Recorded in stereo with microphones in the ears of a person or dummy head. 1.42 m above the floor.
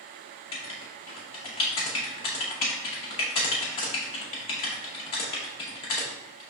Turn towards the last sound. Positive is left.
turn(degrees=25)  # may be behind; listen again after turning